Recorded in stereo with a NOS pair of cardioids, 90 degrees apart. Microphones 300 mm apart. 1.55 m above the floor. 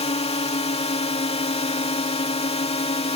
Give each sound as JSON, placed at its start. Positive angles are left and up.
{"t": 0.0, "sound": "a drone", "azimuth_deg": 20}